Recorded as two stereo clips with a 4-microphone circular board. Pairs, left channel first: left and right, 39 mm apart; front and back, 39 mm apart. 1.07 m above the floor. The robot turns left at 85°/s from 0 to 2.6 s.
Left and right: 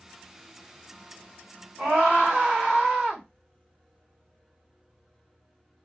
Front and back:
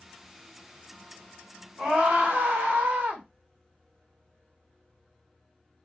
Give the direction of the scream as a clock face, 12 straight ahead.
4 o'clock.